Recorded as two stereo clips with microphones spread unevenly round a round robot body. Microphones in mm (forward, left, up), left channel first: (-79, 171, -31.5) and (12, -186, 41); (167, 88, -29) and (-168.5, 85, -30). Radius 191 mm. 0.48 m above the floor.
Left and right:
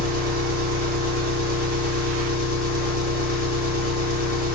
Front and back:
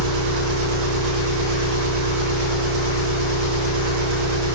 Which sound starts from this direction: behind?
An engine running, at 0.0 s.